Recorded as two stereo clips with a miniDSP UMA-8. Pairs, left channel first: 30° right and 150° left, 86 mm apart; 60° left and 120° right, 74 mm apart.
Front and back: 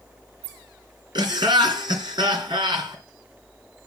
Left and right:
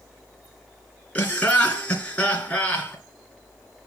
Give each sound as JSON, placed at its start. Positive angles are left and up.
{"t": 1.1, "sound": "laughter", "azimuth_deg": 130, "distance_m": 3.0}